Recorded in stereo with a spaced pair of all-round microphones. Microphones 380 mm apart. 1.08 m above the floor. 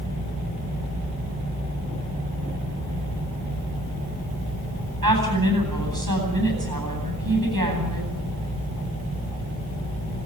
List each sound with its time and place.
5.0 s a woman speaking: 65° right (ahead or behind), 9.5 m